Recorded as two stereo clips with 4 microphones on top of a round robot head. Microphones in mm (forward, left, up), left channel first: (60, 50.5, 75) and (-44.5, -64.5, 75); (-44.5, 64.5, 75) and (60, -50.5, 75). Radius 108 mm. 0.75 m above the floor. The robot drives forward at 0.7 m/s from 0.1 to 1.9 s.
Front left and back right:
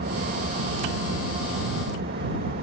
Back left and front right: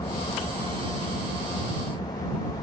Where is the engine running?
160° right.